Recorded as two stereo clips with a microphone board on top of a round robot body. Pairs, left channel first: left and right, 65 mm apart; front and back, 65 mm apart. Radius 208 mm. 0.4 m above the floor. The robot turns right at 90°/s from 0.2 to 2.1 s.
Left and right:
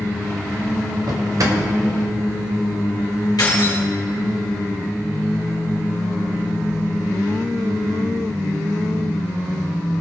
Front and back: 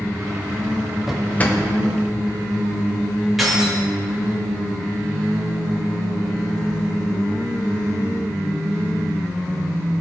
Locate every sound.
1.1 s a drawer: 95° right, 1.7 m; by 1.6 s 50° right, 1.7 m
3.4 s keys jangling: 90° left, 3 m